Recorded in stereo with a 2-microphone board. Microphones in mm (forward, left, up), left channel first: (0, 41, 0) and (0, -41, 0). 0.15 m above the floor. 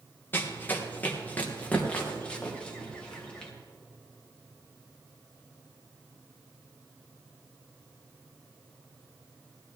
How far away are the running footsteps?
About 2 m.